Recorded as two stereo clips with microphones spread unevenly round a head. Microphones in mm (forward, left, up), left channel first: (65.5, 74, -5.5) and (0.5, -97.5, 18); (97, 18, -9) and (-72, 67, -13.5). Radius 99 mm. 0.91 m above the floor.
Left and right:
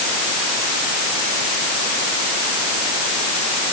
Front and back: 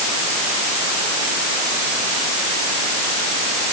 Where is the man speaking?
No man speaking in this recording.